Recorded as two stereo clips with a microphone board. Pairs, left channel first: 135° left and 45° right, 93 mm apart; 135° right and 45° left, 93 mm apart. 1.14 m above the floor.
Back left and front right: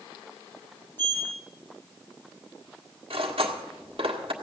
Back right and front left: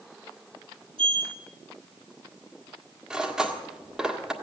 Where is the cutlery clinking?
40° right, 1.6 m.